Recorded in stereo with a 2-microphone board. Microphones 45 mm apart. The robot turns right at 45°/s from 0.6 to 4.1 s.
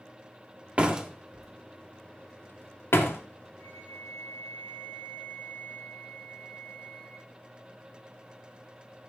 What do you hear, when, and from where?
0.8 s a door slam: 30° right (ahead or behind), 1.8 m; by 3.2 s 80° left, 1.8 m
3.6 s a flute: 30° left (ahead or behind), 6.5 m; by 7.3 s 55° left (ahead or behind), 6.5 m